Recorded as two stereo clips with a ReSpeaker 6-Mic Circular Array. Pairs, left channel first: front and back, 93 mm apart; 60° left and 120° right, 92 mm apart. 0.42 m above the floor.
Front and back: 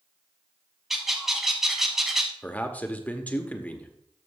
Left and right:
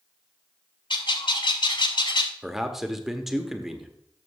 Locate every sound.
0.9 s a bird: 90° left, 0.9 m
2.4 s a man speaking: 40° right, 0.9 m